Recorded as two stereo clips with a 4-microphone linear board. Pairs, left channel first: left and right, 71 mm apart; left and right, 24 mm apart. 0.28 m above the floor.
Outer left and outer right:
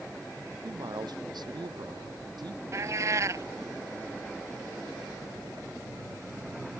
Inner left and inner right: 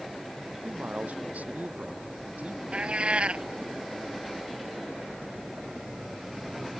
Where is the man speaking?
80° right.